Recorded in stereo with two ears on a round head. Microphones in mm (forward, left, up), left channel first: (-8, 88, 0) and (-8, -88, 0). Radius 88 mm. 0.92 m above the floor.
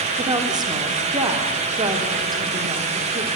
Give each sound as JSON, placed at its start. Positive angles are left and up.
{"t": 0.2, "sound": "a woman speaking", "side_deg": -20, "distance_m": 3.0}